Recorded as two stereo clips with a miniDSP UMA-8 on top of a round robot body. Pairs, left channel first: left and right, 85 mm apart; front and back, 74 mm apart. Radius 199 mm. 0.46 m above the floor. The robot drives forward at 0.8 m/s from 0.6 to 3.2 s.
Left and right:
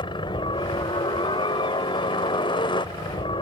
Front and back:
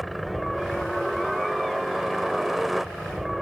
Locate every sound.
0.0 s a helicopter: 90° left; by 3.4 s 95° left